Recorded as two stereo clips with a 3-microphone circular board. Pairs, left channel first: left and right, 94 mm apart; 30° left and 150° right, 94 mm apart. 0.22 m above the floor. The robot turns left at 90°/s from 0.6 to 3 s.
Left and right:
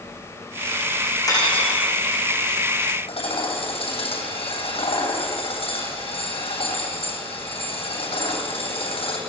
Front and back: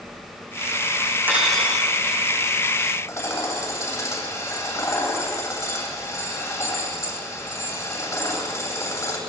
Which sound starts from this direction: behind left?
Cutlery clinking, at 1.3 s.